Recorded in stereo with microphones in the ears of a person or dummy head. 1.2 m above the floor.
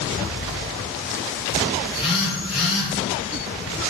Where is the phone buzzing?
Centre (ahead or behind), 8 m.